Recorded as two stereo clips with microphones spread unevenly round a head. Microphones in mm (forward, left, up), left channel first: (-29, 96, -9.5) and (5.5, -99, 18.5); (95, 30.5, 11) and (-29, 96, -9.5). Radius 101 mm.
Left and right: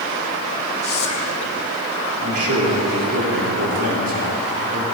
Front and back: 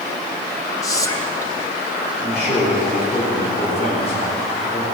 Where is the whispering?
40° left, 1.6 m.